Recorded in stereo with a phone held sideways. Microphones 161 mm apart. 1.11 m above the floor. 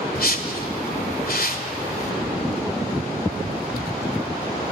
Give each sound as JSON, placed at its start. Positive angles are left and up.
{"t": 0.1, "sound": "a whoosh", "side_deg": 70, "distance_m": 2.0}